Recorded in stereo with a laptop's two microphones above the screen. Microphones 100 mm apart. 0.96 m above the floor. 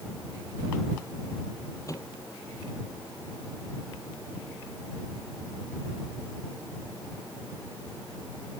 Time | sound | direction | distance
1.9 | a microwave | 35° left (ahead or behind) | ?